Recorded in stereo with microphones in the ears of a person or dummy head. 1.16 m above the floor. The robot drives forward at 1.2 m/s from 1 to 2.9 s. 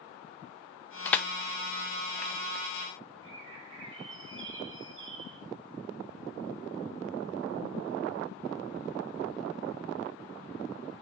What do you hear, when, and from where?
1.1 s crushing: 10° left (ahead or behind), 0.6 m; by 2.4 s 5° left (ahead or behind), 2 m
3.2 s a bird: 65° right (ahead or behind), 2.5 m